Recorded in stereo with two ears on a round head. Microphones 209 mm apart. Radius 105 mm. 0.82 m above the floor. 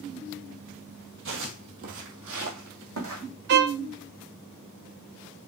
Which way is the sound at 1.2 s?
60° right (ahead or behind).